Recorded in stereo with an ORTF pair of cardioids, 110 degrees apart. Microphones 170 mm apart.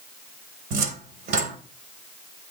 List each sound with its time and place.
0.7 s a cupboard door: 65° right, 1.9 m